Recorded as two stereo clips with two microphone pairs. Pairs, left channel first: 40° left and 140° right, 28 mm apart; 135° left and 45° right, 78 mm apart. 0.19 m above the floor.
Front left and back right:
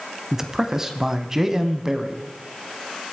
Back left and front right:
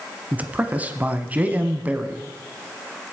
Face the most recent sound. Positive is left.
turn(degrees=-90)